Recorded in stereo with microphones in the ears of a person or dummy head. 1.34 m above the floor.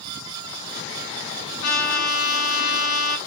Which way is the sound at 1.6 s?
85° left.